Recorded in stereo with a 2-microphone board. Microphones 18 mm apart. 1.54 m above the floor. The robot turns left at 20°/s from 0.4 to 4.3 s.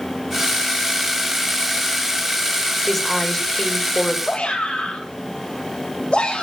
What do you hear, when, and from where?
2.9 s a woman speaking: 15° left (ahead or behind), 4.5 m; by 4.2 s 40° left (ahead or behind), 4.5 m
4.2 s a shout: 85° left, 8 m